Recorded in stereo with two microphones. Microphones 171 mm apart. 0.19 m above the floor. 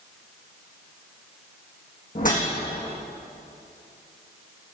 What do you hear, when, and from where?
2.1 s a whoosh: 55° left (ahead or behind), 6 m